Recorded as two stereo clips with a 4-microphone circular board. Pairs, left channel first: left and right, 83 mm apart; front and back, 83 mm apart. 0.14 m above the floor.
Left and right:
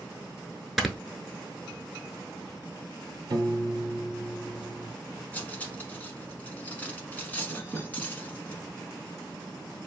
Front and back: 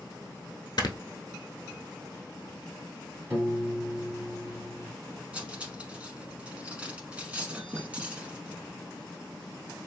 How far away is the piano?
About 1.2 m.